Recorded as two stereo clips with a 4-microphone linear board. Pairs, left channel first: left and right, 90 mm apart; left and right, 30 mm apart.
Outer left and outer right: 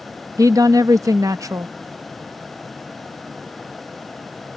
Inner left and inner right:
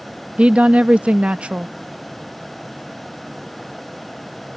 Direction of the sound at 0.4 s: 40° right (ahead or behind).